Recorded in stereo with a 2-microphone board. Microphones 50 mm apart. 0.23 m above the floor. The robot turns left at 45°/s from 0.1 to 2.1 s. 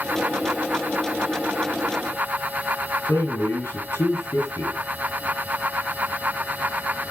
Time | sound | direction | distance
3.1 | a man speaking | 65° left (ahead or behind) | 5 m